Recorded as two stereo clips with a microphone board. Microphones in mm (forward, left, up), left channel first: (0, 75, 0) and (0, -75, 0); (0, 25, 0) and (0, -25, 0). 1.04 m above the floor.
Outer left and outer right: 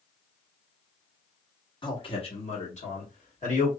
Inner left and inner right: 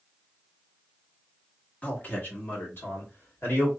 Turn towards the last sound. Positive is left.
turn(degrees=60)  # may be behind; listen again after turning